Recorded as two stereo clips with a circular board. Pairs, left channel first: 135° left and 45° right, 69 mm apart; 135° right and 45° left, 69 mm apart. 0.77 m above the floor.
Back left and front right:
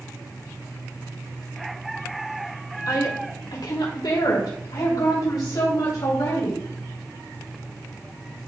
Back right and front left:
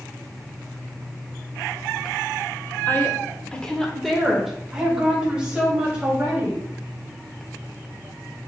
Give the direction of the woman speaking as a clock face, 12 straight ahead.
6 o'clock.